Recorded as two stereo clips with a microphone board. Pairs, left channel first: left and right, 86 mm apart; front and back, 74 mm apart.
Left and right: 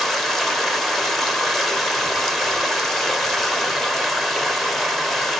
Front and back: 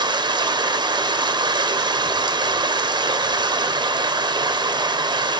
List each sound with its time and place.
0.0 s running water: straight behind, 0.8 m